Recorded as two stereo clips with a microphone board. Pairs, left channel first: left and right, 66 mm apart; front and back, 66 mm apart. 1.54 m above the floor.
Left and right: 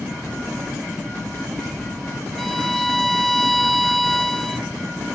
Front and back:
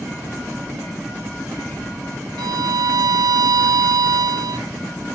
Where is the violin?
175° left, 0.6 m.